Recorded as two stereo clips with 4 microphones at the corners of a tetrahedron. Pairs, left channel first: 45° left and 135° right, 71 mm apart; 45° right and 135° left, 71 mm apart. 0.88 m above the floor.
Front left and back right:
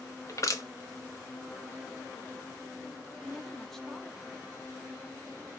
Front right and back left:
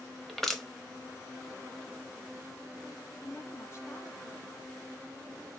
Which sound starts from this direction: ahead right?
A woman speaking, at 3.2 s.